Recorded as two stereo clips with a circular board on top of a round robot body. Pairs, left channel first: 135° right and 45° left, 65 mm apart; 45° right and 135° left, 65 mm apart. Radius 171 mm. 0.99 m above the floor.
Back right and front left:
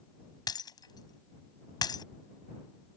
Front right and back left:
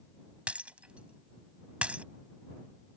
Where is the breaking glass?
150° right.